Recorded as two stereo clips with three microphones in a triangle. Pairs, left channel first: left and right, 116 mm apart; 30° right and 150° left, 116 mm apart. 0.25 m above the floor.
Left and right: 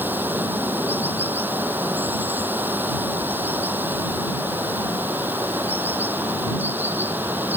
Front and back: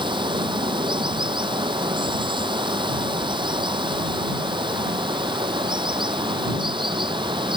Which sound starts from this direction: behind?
Running water, at 0.0 s.